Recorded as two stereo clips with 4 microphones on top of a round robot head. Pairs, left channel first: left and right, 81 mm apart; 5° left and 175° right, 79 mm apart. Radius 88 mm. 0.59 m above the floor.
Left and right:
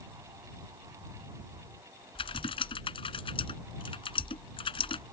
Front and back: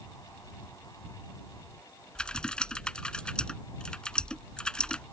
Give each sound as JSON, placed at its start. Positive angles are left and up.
{"t": 2.1, "sound": "typing on a keyboard", "azimuth_deg": 85}